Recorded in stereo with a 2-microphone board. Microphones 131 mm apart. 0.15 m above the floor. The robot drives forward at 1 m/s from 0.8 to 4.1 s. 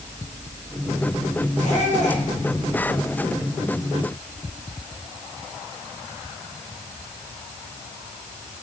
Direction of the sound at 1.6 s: 70° left (ahead or behind).